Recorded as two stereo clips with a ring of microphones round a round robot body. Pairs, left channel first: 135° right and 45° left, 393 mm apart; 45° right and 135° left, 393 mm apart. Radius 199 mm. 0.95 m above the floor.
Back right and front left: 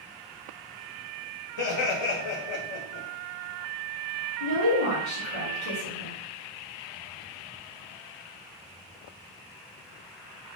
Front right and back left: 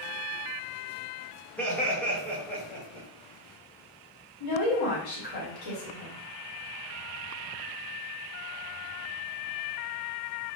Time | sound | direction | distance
1.6 | laughter | 130° right | 1.3 m
4.4 | a woman speaking | 75° right | 1.7 m